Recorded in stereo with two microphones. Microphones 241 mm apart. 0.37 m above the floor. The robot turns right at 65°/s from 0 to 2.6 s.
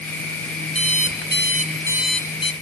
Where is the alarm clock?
90° right, 0.9 m; by 2.5 s 25° left, 0.9 m.